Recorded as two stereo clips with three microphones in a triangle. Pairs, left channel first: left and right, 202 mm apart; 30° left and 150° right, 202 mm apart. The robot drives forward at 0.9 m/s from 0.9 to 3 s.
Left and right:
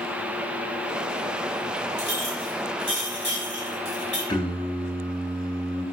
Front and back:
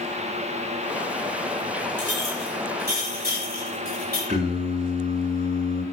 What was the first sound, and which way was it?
A clink, 105° right.